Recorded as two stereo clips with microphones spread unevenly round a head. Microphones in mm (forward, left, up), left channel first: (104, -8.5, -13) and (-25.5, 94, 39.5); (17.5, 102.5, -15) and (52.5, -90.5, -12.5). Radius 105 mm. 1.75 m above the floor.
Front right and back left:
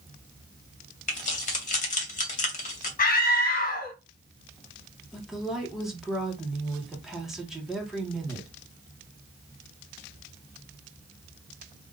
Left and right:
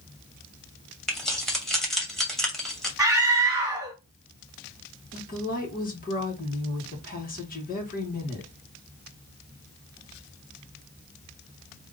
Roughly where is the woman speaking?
Ahead left.